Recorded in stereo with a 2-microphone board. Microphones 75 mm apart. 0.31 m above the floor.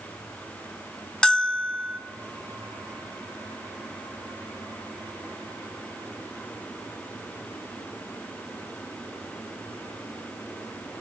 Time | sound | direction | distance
1.2 | a bell | 10° left (ahead or behind) | 1.0 m